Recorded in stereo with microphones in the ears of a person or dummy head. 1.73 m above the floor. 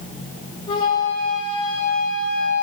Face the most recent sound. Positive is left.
turn(degrees=25)  # may be behind; listen again after turning